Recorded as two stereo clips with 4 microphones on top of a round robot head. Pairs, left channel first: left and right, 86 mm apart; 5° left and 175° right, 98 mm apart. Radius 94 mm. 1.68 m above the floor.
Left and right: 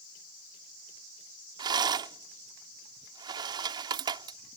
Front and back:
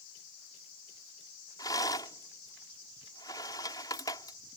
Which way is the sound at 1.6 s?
60° right.